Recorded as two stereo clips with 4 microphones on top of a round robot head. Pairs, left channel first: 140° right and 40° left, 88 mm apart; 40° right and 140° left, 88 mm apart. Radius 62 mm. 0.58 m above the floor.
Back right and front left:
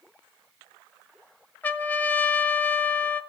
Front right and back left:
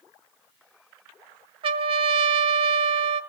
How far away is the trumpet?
About 1.1 m.